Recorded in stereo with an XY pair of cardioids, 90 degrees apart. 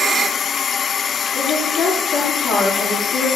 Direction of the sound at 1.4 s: 65° left.